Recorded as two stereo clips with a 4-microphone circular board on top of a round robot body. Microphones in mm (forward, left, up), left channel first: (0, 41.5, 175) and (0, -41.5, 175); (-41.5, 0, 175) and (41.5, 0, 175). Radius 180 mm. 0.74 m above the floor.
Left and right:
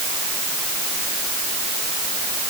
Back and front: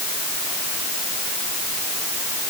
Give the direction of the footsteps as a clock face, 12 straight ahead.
No footsteps in this recording.